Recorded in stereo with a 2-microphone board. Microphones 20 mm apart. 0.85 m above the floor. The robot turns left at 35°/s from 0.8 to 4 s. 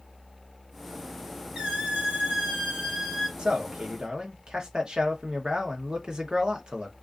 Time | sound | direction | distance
1.6 | a squeak | 90° right | 1.2 m
3.4 | a man speaking | 50° right (ahead or behind) | 0.7 m